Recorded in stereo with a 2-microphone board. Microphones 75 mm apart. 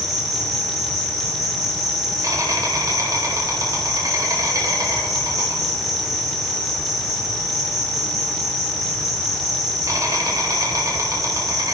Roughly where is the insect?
Right.